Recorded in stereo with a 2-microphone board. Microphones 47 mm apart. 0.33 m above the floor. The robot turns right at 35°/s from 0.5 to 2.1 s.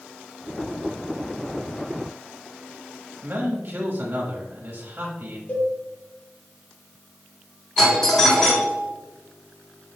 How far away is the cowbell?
About 2 m.